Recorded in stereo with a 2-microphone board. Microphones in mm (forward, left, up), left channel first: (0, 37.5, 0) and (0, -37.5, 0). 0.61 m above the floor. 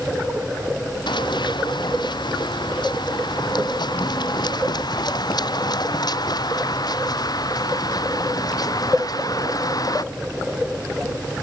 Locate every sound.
1.1 s running footsteps: 75° left (ahead or behind); by 10.0 s 55° left (ahead or behind)